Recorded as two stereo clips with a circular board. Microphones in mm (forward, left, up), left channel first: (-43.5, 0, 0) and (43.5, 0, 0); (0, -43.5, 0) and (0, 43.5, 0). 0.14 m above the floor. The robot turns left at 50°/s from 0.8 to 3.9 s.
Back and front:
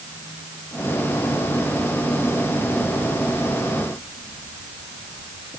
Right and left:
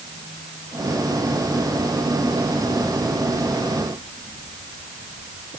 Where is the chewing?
I don't hear chewing.